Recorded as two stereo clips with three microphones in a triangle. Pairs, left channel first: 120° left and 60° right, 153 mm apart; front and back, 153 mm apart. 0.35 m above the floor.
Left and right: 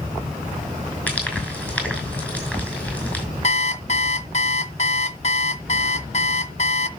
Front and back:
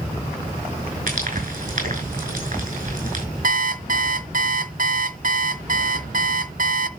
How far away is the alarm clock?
About 0.7 m.